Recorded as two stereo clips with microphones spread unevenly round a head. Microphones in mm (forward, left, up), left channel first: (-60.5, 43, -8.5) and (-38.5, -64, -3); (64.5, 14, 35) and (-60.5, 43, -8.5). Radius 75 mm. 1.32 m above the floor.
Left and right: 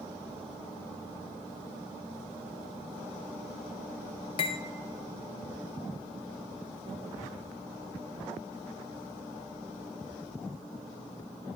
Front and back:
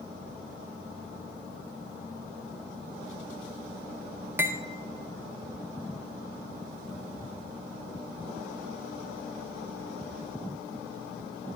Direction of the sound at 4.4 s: 80° left.